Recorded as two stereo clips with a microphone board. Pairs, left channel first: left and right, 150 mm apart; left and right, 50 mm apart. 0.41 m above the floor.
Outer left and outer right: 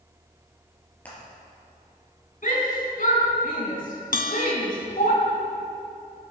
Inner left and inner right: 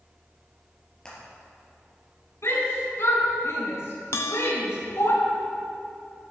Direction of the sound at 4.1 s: 65° left (ahead or behind).